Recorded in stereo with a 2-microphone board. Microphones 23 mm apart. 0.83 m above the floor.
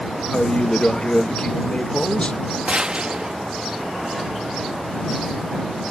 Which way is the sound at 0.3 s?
40° left (ahead or behind).